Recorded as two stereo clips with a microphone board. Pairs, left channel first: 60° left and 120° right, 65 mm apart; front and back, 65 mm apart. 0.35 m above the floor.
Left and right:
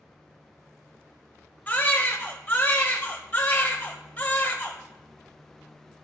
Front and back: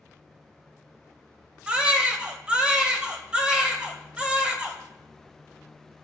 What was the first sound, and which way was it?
A baby crying, 115° left.